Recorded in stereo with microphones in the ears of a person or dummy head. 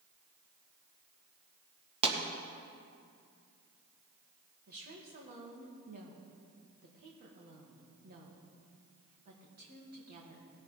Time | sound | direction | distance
2.0 | a pop | 30° right (ahead or behind) | 1.7 m
4.7 | a woman speaking | 50° right (ahead or behind) | 2.5 m